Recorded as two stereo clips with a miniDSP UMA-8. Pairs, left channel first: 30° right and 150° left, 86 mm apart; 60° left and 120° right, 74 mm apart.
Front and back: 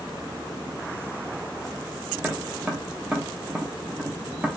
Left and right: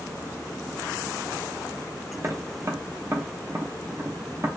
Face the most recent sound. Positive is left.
turn(degrees=-145)